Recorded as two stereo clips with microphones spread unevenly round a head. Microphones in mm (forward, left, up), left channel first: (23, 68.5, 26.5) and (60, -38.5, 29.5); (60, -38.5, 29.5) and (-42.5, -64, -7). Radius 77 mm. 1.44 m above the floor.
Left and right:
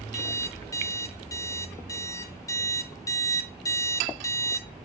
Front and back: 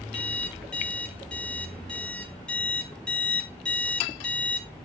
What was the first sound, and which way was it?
An alarm clock, 60° left.